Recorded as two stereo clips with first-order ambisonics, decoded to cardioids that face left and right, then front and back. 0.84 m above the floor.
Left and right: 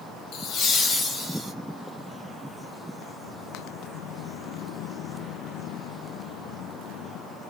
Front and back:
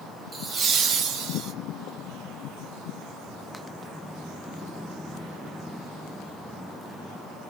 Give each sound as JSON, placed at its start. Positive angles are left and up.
{"t": 0.3, "sound": "laughter", "azimuth_deg": 110, "distance_m": 0.7}